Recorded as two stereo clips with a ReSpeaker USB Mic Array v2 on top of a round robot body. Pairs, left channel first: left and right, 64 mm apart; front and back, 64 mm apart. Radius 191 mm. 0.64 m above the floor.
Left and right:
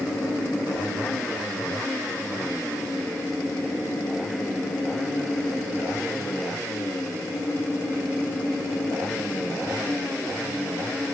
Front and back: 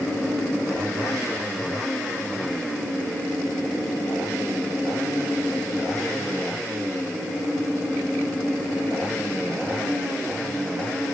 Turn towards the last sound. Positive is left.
No sound to turn to.